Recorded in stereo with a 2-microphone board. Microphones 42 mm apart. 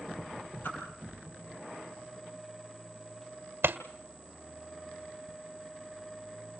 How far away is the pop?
About 1.7 m.